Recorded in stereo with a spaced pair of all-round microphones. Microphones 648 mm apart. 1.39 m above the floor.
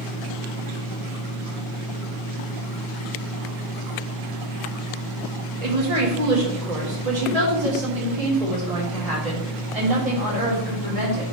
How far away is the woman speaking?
About 1.6 m.